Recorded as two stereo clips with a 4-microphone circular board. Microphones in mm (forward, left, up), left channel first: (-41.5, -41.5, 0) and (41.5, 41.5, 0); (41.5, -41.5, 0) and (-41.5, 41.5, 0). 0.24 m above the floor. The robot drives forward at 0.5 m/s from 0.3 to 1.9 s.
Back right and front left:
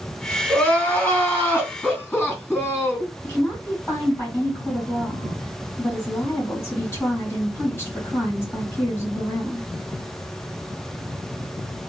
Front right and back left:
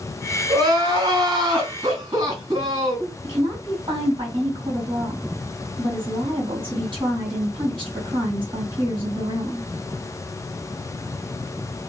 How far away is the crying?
About 1.8 m.